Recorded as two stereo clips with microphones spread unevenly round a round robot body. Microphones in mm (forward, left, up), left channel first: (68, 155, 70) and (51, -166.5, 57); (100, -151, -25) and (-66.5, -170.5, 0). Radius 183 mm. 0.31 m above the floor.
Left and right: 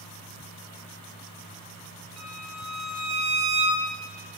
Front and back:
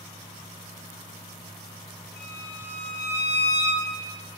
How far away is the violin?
About 1.8 m.